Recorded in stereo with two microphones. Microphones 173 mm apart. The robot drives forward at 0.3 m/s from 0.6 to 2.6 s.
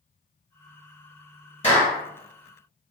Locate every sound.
1.6 s a clap: 40° left (ahead or behind), 1.7 m; by 2.0 s 35° left (ahead or behind), 1.8 m